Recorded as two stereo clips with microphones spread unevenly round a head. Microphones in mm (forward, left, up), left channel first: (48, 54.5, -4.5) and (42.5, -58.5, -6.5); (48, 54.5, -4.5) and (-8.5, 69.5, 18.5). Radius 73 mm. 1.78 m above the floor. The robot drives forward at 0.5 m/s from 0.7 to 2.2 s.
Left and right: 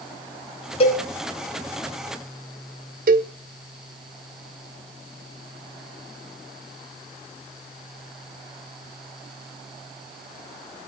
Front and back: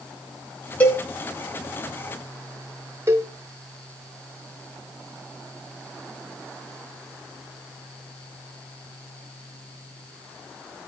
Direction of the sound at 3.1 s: 125° right.